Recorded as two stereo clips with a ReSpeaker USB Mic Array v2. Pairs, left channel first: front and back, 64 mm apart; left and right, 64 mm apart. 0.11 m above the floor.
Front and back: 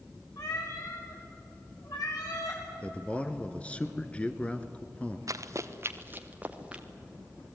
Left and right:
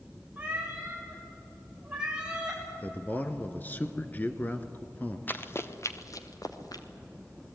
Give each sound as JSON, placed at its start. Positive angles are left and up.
{"t": 0.4, "sound": "a cat meowing", "azimuth_deg": -20, "distance_m": 8.0}
{"t": 2.8, "sound": "a man speaking", "azimuth_deg": 55, "distance_m": 1.5}
{"t": 5.3, "sound": "running footsteps", "azimuth_deg": 150, "distance_m": 1.9}